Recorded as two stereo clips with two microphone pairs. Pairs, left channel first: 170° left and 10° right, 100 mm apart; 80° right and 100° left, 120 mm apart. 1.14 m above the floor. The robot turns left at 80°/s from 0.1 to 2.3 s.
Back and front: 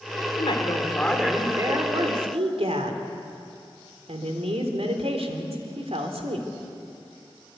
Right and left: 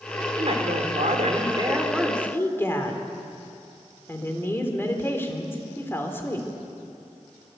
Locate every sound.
0.4 s a woman speaking: 145° left, 3.5 m; by 6.5 s 10° right, 3.5 m